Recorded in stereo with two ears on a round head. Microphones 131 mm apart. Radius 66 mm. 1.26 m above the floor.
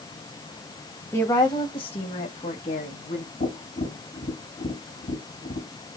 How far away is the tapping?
About 3 m.